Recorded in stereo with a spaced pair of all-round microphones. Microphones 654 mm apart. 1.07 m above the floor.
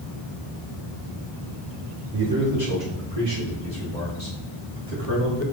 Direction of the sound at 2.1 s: 35° right (ahead or behind).